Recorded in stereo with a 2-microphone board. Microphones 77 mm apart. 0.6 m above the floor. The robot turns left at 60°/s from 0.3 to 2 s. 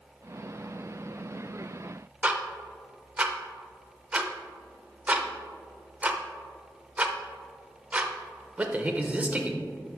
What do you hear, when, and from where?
2.2 s ticking: 20° right (ahead or behind), 0.6 m